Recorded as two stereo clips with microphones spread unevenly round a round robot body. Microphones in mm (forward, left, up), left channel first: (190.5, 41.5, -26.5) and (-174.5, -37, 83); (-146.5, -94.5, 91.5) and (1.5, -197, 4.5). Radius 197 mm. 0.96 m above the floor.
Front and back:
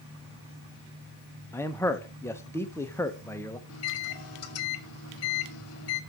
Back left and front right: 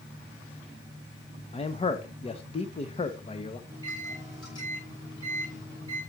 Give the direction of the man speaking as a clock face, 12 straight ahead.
10 o'clock.